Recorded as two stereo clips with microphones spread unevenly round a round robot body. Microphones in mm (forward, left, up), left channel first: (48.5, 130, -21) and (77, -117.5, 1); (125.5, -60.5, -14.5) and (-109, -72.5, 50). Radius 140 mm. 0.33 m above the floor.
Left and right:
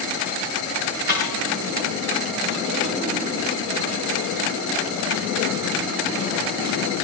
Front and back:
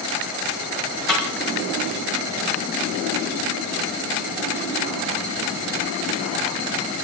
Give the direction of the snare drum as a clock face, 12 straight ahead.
7 o'clock.